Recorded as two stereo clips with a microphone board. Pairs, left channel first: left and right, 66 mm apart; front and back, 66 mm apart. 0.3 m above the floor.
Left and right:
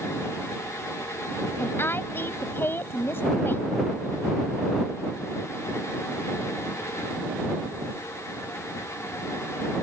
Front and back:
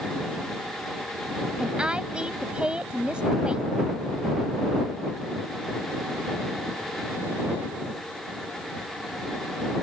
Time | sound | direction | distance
1.6 | a woman speaking | 115° left | ?